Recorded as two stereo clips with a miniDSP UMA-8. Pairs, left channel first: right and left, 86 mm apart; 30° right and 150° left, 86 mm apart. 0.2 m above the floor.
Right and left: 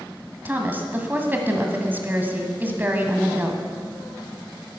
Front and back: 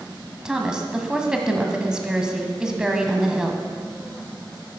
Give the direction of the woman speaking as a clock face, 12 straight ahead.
9 o'clock.